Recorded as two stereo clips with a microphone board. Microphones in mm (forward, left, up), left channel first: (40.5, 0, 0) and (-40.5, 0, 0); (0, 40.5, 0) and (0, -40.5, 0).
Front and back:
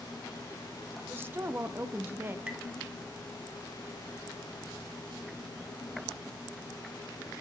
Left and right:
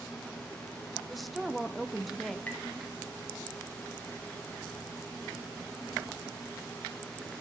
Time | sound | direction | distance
1.1 | a woman speaking | straight behind | 0.5 m
2.5 | tapping | 125° left | 1.2 m